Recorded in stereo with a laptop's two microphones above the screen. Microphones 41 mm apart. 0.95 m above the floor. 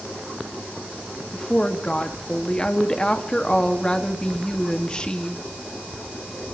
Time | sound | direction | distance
1.3 | a woman speaking | 20° left (ahead or behind) | 1.4 m